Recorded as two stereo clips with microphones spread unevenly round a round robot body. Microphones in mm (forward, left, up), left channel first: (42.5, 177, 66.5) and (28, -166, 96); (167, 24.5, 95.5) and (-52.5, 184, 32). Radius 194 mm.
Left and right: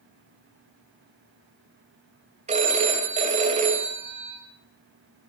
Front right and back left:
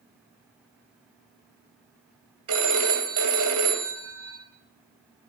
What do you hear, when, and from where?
2.5 s a phone ringing: 165° right, 2 m